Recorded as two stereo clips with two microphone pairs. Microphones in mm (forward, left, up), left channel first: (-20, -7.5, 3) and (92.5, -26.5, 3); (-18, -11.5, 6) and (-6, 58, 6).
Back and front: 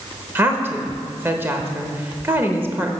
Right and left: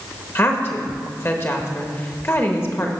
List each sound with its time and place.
0.3 s a woman speaking: 65° right, 1.1 m